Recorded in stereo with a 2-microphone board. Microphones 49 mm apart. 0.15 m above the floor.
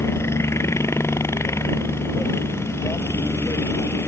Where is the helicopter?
65° left (ahead or behind).